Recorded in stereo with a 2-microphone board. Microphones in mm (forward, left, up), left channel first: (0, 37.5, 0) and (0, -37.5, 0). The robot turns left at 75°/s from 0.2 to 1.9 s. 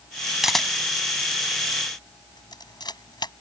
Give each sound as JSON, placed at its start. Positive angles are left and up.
{"t": 0.4, "sound": "a camera shutter", "side_deg": -5}